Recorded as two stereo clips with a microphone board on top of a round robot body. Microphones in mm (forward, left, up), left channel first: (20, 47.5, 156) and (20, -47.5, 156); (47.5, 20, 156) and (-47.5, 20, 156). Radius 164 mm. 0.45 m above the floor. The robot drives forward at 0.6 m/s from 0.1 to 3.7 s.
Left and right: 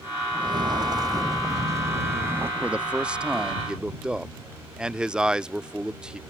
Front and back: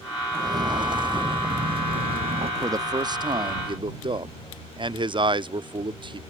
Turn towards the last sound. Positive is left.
turn(degrees=-170)